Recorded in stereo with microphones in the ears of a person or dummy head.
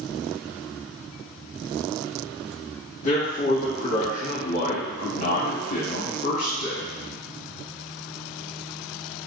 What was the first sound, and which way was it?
A man speaking, 50° left (ahead or behind).